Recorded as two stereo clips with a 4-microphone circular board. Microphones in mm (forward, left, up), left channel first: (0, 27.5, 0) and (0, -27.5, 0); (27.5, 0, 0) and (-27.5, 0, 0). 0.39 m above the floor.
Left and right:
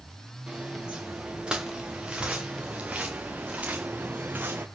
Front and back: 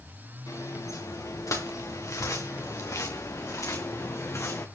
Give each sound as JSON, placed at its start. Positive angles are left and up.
{"t": 0.5, "sound": "footsteps", "azimuth_deg": -10, "distance_m": 4.5}